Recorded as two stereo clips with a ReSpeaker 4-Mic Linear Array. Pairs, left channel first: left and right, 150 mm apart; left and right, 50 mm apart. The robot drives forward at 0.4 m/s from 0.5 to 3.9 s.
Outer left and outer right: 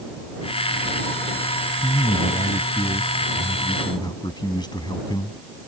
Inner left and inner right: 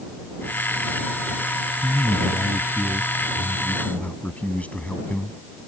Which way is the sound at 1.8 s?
45° left (ahead or behind).